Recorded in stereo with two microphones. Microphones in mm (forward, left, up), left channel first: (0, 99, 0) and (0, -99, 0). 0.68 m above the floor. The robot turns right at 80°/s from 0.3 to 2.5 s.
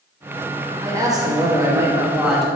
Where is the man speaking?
15° right (ahead or behind), 1.0 m; by 2.5 s centre (ahead or behind), 1.0 m.